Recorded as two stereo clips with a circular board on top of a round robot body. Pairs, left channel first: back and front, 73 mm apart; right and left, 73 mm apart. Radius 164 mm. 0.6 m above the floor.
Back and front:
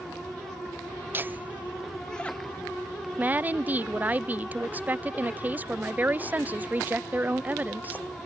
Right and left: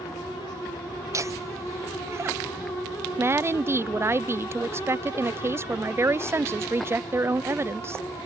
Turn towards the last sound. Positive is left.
turn(degrees=55)